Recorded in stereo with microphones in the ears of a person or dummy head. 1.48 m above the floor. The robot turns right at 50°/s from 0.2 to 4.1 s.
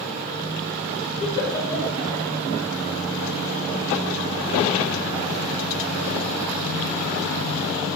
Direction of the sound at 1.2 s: 35° left (ahead or behind).